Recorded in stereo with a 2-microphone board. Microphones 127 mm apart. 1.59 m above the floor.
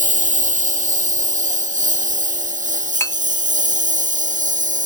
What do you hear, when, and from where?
0.0 s a lawn mower: 80° right; by 4.9 s 85° right
3.0 s a clink: 20° left (ahead or behind)